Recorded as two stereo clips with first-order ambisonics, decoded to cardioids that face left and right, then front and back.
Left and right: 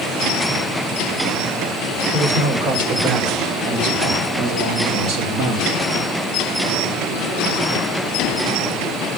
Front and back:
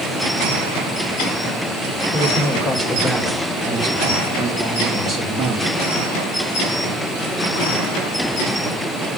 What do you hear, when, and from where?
2.1 s a man speaking: 110° right, 6 m; by 5.8 s 125° right, 4 m